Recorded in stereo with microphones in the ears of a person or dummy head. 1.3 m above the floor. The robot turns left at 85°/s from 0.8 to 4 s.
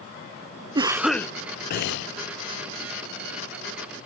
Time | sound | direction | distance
0.8 | a cough | 150° right | 0.6 m